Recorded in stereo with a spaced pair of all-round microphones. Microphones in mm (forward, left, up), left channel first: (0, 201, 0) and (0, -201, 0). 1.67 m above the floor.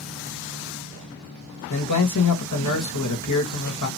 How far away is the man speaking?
About 0.7 m.